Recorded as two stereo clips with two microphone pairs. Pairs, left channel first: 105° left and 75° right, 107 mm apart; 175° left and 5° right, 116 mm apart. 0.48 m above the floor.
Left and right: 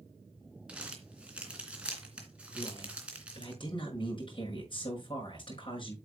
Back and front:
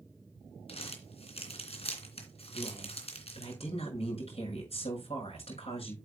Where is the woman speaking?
145° left, 6 m.